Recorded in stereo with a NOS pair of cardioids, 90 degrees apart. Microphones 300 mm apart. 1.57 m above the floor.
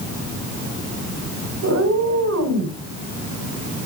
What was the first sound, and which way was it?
A cat meowing, 55° right.